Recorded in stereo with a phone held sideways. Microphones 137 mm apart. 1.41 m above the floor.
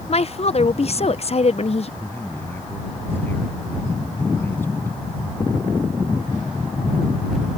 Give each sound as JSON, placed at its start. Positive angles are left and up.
{"t": 0.1, "sound": "a woman speaking", "side_deg": 50}
{"t": 2.0, "sound": "a man speaking", "side_deg": 15}